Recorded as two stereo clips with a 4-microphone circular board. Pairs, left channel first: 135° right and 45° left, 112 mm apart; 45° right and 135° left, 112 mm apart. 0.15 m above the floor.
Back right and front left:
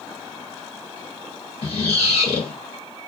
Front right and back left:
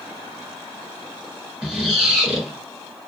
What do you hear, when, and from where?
1.6 s a squeak: 140° right, 1.3 m